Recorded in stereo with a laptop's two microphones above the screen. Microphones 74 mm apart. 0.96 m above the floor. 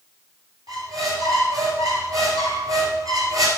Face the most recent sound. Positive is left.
turn(degrees=-55)  # may be behind; listen again after turning